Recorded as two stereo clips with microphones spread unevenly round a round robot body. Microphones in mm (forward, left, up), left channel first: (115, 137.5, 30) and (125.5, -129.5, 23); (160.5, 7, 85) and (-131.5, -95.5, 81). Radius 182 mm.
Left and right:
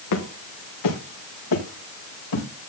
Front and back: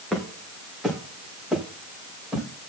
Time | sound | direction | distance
0.1 | footsteps | 105° left | 4.5 m